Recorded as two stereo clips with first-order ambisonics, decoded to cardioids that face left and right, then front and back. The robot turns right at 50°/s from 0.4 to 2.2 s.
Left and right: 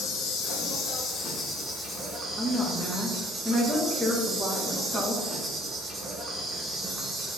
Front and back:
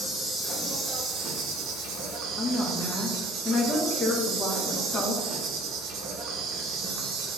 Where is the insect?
95° left, 0.8 m; by 7.4 s 175° right, 0.8 m.